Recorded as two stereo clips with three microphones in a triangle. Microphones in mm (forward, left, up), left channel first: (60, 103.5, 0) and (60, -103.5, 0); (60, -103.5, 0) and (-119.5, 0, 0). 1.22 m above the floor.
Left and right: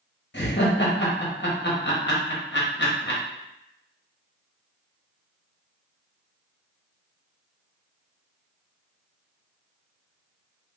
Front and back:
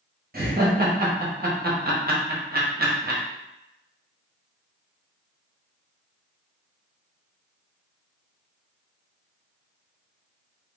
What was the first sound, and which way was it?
Laughter, 115° left.